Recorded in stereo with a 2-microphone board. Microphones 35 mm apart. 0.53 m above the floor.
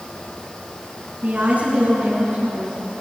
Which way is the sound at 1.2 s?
45° right (ahead or behind).